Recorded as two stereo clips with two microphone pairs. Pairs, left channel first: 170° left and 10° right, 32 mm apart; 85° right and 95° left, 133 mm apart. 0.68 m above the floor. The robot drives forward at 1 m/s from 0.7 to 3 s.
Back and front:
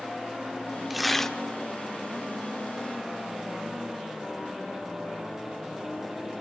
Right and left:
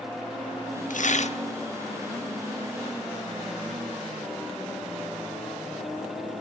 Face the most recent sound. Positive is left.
turn(degrees=-155)